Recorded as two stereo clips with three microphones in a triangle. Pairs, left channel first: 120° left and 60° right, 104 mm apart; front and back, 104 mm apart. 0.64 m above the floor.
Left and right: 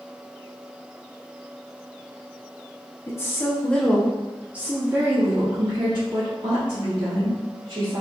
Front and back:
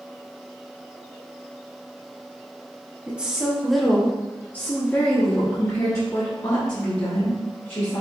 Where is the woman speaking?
115° left, 1.0 m; by 8.0 s 45° right, 2 m.